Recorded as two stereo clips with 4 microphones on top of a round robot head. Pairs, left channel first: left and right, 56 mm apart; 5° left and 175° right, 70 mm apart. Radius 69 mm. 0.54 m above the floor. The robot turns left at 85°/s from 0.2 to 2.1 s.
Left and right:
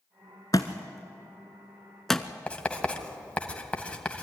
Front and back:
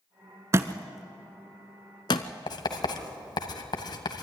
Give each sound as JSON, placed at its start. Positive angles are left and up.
{"t": 0.5, "sound": "a thud", "azimuth_deg": 145, "distance_m": 0.6}
{"t": 2.5, "sound": "writing", "azimuth_deg": 25, "distance_m": 1.9}